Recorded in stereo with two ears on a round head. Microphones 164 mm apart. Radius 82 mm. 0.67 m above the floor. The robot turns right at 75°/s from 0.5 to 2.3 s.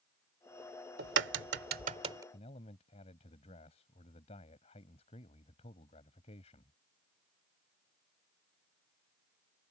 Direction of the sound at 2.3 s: 35° left (ahead or behind).